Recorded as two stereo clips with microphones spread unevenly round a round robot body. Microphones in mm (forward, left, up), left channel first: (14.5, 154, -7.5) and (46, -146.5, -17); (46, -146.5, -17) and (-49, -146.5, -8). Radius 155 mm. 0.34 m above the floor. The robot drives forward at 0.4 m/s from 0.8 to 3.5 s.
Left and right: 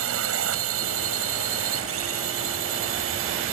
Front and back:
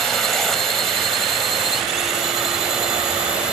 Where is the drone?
85° right; by 3.5 s 100° right.